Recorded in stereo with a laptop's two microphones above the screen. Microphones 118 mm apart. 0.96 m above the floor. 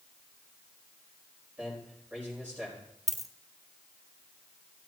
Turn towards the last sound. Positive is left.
turn(degrees=0)  # may be behind; listen again after turning